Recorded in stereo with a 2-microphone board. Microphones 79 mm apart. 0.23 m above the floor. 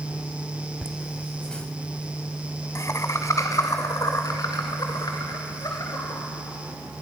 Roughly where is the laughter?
Centre.